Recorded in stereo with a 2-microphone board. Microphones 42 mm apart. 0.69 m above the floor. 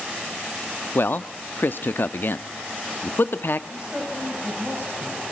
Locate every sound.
0.9 s a man speaking: 55° left (ahead or behind), 0.8 m
3.7 s a woman speaking: 20° right (ahead or behind), 3.5 m